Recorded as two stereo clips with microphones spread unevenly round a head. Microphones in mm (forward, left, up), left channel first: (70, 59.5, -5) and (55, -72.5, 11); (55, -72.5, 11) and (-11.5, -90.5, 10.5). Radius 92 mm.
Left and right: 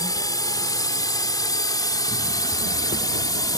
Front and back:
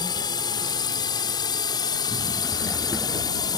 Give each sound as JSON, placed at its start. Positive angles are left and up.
{"t": 0.0, "sound": "a drone", "azimuth_deg": 25}